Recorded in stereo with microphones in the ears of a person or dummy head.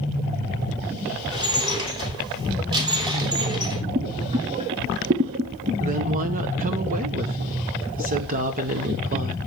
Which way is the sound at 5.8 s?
40° right (ahead or behind).